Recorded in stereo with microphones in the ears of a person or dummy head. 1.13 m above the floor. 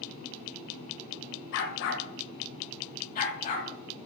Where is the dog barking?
60° left (ahead or behind), 1.7 m; by 4.1 s 35° left (ahead or behind), 3 m.